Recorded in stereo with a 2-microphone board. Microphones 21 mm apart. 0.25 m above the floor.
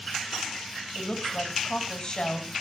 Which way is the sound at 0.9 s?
30° left (ahead or behind).